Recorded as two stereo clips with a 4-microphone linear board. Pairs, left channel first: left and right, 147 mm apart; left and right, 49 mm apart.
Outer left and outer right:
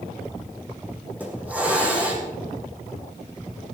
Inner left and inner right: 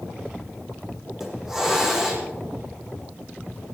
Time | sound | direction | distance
1.2 | a hiss | 10° right (ahead or behind) | 4.5 m